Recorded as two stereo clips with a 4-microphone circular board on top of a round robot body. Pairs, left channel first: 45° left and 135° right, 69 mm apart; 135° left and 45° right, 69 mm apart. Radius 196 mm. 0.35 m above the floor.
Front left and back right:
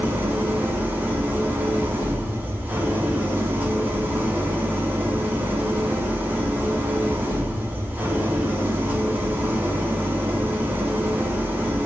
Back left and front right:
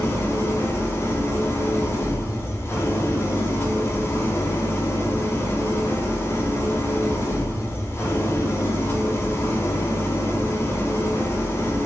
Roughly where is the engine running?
Behind.